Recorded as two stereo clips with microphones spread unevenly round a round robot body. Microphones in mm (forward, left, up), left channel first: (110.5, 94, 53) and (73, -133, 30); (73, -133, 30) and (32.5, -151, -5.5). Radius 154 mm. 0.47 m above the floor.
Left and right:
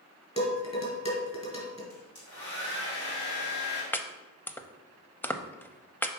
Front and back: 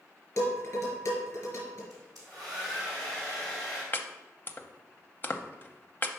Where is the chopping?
Straight ahead, 0.6 m.